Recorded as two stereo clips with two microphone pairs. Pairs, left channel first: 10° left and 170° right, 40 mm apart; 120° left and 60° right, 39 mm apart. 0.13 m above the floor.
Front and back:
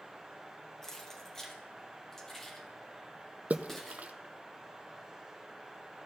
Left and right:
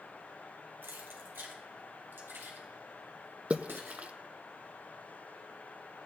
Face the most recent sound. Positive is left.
turn(degrees=-115)